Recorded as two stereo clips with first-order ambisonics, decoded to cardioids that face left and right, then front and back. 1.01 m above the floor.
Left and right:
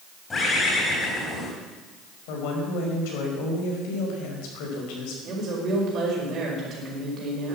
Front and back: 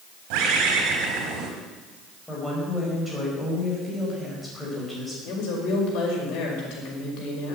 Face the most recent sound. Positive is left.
turn(degrees=-30)